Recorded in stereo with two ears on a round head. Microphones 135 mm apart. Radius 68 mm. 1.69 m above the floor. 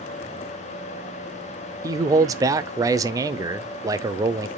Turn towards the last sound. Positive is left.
turn(degrees=-25)  # may be behind; listen again after turning